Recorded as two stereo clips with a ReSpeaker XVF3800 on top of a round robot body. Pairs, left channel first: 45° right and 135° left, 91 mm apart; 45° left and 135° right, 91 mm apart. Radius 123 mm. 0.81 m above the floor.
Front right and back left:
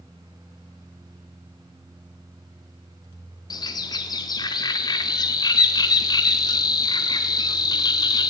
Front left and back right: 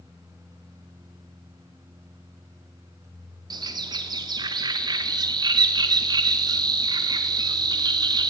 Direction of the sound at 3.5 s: 90° right.